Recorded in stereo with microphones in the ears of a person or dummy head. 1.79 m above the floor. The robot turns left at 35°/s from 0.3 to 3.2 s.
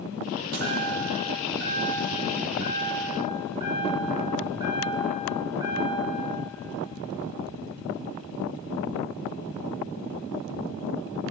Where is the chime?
60° right, 4 m; by 6.2 s 155° right, 4 m.